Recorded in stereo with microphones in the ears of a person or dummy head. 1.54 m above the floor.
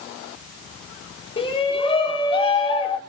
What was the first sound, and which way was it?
A shout, 35° left (ahead or behind).